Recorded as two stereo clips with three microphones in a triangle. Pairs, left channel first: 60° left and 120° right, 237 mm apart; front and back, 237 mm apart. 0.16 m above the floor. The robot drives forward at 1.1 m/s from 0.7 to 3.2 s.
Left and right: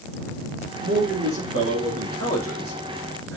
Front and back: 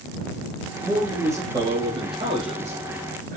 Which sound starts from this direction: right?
A man speaking, at 0.8 s.